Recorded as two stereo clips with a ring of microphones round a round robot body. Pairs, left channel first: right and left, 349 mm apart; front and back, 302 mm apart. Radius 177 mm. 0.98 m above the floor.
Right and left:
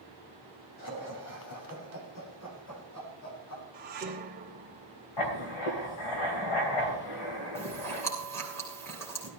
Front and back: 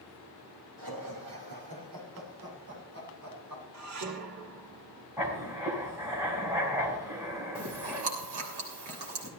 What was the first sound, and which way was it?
Laughter, 135° right.